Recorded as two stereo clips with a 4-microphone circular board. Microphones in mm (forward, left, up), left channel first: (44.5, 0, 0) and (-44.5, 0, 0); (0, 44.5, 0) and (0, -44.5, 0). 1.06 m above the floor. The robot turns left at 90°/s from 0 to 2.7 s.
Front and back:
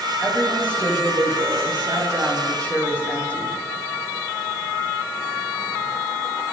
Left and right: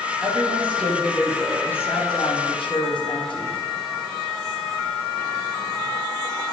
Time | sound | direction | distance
0.2 | a woman speaking | 65° right | 8.5 m